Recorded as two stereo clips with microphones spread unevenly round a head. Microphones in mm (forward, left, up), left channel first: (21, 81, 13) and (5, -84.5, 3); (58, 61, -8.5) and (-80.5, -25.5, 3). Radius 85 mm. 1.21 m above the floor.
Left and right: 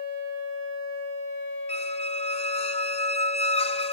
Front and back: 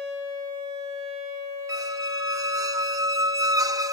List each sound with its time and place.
1.7 s a squeak: 140° left